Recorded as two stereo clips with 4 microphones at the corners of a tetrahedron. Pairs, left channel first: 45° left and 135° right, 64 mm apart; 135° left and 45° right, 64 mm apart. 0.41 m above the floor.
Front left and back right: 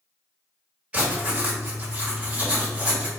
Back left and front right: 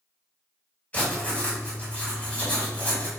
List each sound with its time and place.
0.9 s writing: 175° left, 1.7 m